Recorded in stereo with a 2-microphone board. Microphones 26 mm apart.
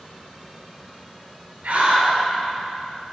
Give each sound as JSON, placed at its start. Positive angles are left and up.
{"t": 1.6, "sound": "a scream", "side_deg": -70, "distance_m": 3.0}